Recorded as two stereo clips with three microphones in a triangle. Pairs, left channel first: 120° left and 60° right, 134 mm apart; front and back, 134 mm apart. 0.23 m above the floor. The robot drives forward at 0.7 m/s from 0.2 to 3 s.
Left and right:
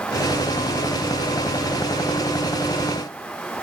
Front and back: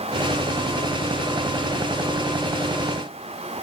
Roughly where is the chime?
No chime in this recording.